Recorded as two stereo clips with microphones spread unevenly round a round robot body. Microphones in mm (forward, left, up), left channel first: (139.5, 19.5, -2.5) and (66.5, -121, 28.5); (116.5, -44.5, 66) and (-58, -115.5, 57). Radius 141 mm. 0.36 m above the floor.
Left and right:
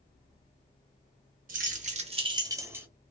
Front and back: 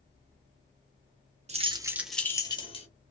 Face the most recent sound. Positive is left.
turn(degrees=-35)